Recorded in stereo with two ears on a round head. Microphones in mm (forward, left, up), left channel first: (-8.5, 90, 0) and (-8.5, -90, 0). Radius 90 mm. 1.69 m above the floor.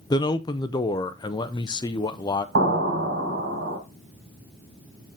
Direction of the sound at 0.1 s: 20° left (ahead or behind).